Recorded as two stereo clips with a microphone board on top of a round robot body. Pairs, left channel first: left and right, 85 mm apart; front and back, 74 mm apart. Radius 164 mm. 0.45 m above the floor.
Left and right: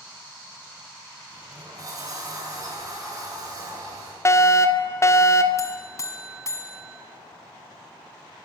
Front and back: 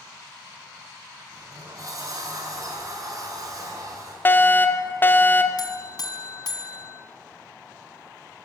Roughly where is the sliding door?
Behind right.